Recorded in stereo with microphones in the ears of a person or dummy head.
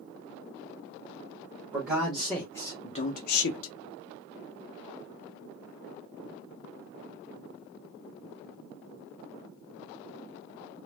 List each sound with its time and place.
1.7 s a man speaking: 5° right (ahead or behind), 1.1 m; by 3.7 s 80° left, 0.7 m